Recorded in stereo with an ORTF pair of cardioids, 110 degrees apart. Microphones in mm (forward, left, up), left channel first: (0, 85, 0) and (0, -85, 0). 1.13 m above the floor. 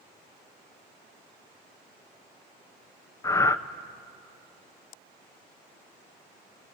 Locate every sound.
3.2 s breathing: 20° left, 0.7 m